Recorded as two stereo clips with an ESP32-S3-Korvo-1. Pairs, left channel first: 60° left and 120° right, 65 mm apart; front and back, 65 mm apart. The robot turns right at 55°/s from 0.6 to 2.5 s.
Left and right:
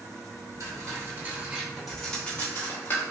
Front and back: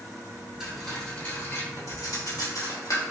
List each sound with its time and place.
0.6 s cutlery clinking: 105° right, 1.1 m; by 3.0 s straight ahead, 1.1 m